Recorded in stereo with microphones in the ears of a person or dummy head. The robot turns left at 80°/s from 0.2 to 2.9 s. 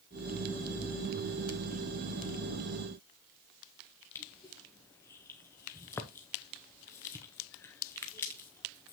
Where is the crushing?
15° left (ahead or behind), 0.6 m.